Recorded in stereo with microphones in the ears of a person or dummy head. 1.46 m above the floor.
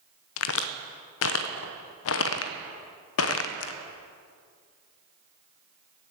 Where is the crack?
85° left, 0.7 m.